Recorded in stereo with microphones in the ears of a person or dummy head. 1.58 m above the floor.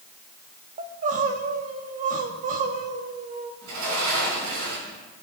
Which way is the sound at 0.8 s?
45° right (ahead or behind).